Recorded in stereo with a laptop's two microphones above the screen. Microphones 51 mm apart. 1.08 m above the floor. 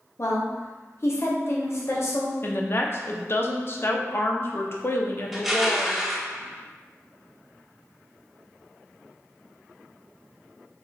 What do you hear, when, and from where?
0.2 s a woman speaking: 55° left (ahead or behind), 0.7 m
2.4 s a woman speaking: 45° left (ahead or behind), 0.5 m
5.3 s crushing: 5° right (ahead or behind), 0.8 m